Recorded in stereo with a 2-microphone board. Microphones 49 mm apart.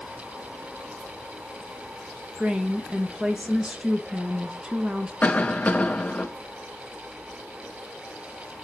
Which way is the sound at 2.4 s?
20° right (ahead or behind).